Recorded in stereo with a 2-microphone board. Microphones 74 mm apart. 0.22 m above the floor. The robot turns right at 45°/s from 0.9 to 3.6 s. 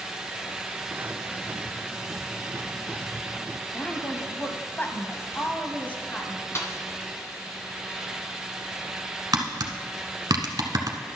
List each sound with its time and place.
3.7 s a woman speaking: 25° left (ahead or behind), 1.0 m
6.5 s a snare drum: 40° left (ahead or behind), 1.1 m
9.3 s tapping: 60° right (ahead or behind), 1.0 m